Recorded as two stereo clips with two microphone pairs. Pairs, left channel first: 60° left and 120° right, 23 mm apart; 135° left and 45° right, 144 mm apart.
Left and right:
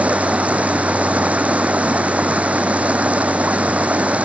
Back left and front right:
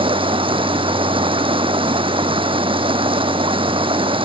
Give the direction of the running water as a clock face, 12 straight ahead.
3 o'clock.